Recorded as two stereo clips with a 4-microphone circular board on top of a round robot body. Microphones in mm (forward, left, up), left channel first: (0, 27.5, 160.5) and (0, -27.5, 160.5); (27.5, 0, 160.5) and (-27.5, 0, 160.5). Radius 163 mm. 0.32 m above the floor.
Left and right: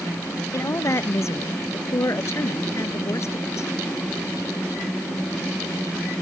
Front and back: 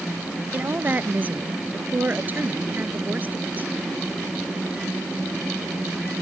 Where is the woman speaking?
125° left.